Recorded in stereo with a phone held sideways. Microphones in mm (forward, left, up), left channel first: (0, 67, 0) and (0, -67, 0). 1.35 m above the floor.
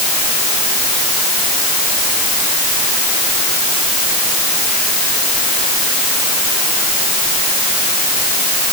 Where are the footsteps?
No footsteps in this recording.